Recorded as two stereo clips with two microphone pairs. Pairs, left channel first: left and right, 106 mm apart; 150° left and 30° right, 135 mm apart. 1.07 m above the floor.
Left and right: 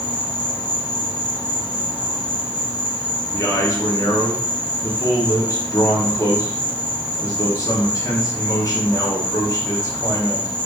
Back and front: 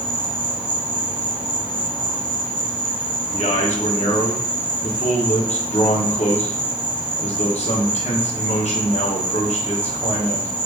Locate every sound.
0.0 s an insect: 15° left, 1.4 m
3.3 s a man speaking: 135° left, 1.0 m